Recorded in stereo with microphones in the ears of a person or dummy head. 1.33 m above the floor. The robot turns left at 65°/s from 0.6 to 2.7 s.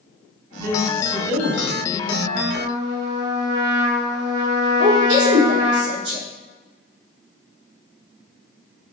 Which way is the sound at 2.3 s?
60° right (ahead or behind).